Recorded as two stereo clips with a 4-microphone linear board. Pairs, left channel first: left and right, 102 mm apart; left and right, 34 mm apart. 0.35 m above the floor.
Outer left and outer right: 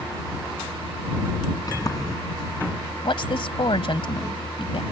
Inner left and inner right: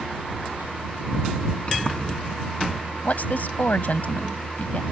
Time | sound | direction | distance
1.7 | a sliding door | 35° left (ahead or behind) | ?
3.0 | a woman speaking | 55° left (ahead or behind) | ?